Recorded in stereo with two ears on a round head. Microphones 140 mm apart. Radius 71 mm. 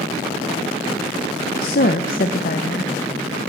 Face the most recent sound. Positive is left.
turn(degrees=60)  # may be behind; listen again after turning